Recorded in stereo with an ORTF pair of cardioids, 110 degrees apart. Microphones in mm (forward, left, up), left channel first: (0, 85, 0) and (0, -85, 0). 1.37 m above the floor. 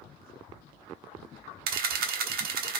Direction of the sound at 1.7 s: 65° right.